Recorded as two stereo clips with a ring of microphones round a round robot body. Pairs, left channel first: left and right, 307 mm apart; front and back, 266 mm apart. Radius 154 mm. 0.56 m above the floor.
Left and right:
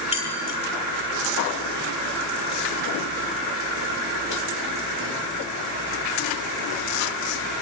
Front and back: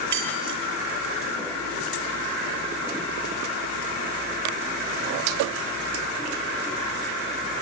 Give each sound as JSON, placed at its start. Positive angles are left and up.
{"t": 0.1, "sound": "keys jangling", "azimuth_deg": 160, "distance_m": 8.5}